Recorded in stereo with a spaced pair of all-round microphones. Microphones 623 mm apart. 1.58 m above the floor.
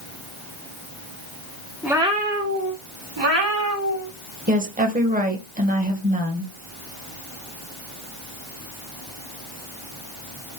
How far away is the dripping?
I don't hear dripping.